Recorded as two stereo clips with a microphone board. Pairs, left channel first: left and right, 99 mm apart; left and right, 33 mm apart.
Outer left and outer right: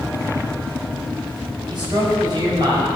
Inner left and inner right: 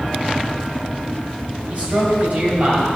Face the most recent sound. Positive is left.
turn(degrees=-45)  # may be behind; listen again after turning